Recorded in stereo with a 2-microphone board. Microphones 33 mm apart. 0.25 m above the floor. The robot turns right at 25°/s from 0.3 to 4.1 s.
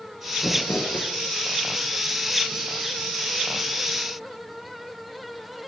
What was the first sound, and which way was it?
Crumpling, 70° left (ahead or behind).